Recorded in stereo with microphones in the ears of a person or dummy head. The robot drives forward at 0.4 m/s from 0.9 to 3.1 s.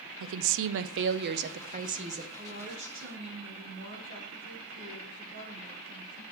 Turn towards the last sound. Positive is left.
turn(degrees=-65)  # may be behind; listen again after turning